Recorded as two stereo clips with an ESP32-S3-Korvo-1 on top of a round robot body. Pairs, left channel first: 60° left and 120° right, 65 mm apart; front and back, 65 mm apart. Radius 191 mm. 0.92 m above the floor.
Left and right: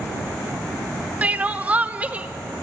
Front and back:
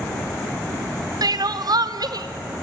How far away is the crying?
About 1.1 m.